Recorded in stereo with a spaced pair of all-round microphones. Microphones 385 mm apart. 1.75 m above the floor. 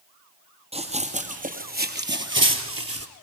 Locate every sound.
0.7 s running footsteps: 15° right (ahead or behind), 3.5 m; by 3.1 s 40° right (ahead or behind), 2.5 m